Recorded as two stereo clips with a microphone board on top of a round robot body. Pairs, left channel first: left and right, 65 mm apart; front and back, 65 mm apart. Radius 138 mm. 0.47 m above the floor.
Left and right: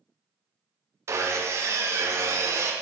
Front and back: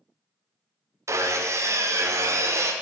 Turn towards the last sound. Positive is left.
turn(degrees=-135)